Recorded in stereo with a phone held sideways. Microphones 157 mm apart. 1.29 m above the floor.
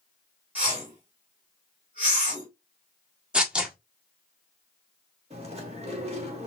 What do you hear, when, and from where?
0.6 s a whoosh: 10° right (ahead or behind), 3 m
3.3 s tearing paper: 5° right (ahead or behind), 1.2 m
5.3 s chewing: 40° right (ahead or behind), 1.4 m